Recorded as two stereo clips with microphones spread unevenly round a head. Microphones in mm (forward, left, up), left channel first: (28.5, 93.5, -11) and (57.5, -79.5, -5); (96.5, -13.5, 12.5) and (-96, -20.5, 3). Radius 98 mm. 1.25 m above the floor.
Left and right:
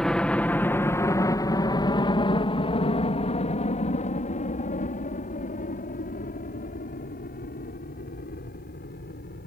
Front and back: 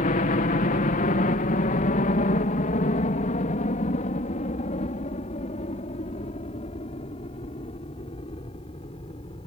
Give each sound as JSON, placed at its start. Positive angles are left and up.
{"t": 0.0, "sound": "a helicopter", "azimuth_deg": 15}